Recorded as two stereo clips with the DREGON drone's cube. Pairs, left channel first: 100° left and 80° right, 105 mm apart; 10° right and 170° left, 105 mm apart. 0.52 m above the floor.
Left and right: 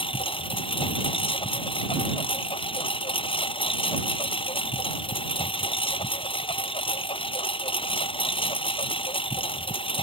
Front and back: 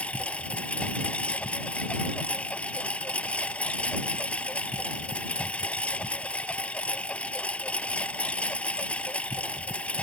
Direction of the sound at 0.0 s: 65° left.